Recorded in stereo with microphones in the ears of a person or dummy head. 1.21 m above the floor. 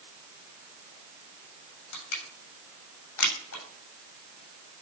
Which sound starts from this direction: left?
Crushing, at 1.9 s.